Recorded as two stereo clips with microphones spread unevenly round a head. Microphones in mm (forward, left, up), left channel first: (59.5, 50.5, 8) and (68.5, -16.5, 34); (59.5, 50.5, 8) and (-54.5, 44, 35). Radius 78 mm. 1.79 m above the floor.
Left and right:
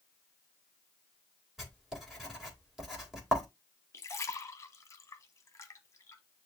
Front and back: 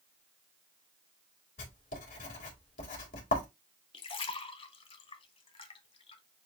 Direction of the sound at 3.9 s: 40° left.